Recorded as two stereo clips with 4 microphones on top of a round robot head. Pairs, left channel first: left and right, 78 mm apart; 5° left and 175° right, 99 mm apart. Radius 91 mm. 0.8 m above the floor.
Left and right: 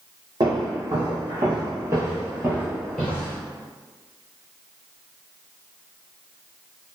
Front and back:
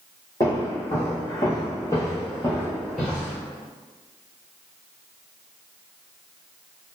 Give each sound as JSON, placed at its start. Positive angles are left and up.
{"t": 0.4, "sound": "footsteps", "azimuth_deg": -60, "distance_m": 1.6}